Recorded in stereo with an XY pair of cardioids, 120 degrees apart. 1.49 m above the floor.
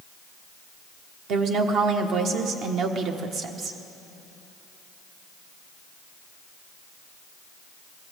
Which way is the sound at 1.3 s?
65° right.